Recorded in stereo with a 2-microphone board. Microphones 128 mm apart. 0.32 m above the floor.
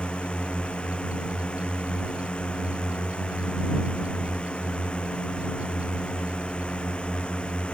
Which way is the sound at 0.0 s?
10° left (ahead or behind).